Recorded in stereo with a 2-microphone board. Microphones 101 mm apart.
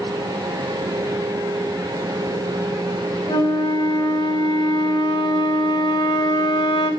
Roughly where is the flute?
Left.